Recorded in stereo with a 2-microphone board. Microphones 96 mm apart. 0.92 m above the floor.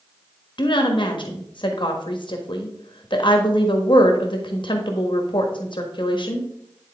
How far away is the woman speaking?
About 1.4 m.